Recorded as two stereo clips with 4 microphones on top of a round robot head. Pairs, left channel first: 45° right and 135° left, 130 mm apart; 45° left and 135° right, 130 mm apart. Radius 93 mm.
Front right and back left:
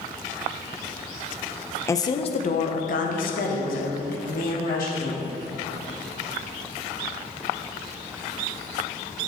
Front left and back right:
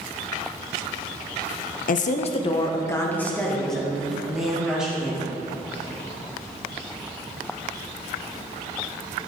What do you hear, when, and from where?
1.9 s a woman speaking: 25° left, 0.6 m; by 5.3 s 55° right, 2.5 m